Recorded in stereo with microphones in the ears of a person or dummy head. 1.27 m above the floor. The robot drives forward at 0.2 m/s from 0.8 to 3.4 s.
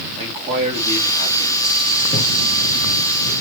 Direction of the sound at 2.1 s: 40° left (ahead or behind).